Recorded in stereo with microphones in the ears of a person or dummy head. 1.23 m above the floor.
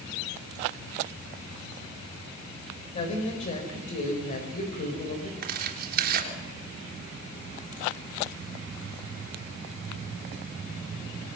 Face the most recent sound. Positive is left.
turn(degrees=-55)  # may be behind; listen again after turning